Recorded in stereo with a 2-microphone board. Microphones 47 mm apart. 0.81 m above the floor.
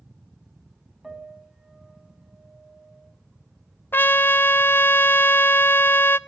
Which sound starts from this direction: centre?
A piano, at 1.0 s.